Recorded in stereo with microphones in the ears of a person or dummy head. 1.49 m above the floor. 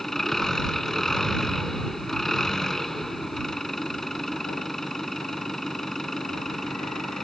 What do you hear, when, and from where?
0.0 s an engine running: 5° left (ahead or behind)